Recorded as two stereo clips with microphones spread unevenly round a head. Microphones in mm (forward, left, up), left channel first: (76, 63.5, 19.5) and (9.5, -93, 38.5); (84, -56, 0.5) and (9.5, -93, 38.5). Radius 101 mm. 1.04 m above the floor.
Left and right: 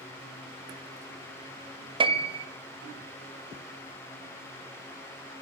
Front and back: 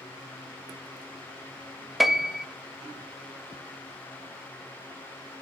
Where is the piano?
55° right, 0.6 m.